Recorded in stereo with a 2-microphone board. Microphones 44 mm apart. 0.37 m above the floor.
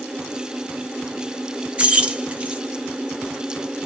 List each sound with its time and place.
1.8 s keys jangling: 25° right (ahead or behind), 0.6 m